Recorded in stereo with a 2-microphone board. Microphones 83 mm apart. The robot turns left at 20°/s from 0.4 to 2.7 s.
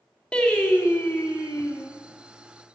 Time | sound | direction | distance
0.3 | singing | 10° left (ahead or behind) | 1.6 m